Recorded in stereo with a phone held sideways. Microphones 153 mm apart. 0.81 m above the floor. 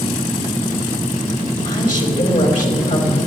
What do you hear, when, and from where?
1.6 s a woman speaking: 65° left (ahead or behind), 4 m